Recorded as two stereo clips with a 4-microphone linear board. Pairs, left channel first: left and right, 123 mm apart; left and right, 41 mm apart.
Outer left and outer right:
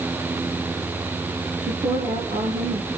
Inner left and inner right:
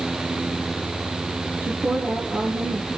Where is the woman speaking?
75° right (ahead or behind), 4.5 m.